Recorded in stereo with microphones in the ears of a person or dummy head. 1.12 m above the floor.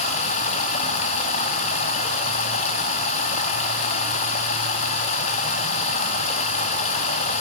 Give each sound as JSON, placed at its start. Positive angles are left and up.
{"t": 0.0, "sound": "running water", "side_deg": 45, "distance_m": 0.7}